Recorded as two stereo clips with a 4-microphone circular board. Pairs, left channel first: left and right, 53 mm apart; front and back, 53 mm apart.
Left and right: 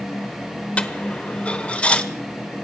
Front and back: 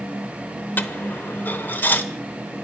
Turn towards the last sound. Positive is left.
turn(degrees=35)